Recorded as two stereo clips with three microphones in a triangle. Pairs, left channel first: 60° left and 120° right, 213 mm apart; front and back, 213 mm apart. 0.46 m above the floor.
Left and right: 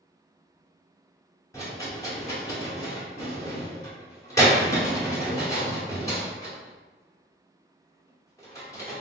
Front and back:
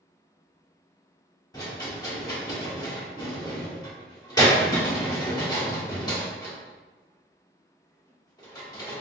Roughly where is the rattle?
Ahead.